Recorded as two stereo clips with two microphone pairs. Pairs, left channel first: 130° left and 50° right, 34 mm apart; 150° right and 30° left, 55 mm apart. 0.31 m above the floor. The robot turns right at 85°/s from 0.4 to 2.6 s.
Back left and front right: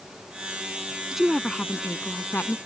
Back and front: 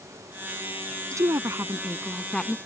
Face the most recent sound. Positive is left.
turn(degrees=150)